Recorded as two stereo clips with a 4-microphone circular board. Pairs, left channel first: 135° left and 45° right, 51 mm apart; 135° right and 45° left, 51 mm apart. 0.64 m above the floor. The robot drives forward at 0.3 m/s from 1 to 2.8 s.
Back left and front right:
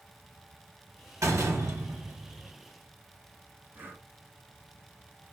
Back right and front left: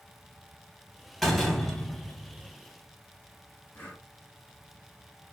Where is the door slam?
50° right, 1.0 m; by 2.5 s 75° right, 0.8 m.